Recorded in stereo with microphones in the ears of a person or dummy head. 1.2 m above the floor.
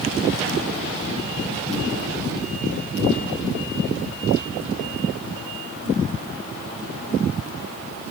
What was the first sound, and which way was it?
Only background noise.